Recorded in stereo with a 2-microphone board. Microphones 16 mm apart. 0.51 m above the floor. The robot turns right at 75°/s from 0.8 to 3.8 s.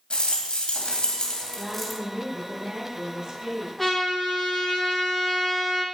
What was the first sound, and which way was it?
A rattle, 100° left.